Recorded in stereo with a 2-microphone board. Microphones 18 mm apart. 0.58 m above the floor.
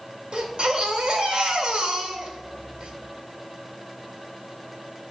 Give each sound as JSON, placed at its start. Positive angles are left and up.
{"t": 0.3, "sound": "a baby crying", "side_deg": -65, "distance_m": 1.8}